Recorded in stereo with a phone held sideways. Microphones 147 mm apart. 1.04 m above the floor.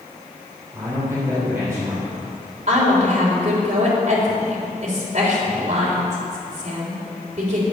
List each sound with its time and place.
0.7 s a man speaking: 20° right (ahead or behind), 4 m
2.7 s a woman speaking: 55° right (ahead or behind), 3.5 m